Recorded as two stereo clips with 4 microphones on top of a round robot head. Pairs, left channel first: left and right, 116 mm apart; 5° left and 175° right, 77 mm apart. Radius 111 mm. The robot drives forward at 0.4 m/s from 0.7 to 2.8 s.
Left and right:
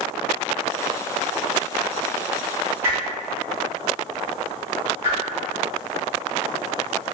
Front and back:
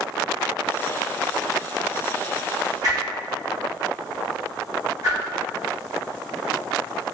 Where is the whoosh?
155° right, 1.8 m.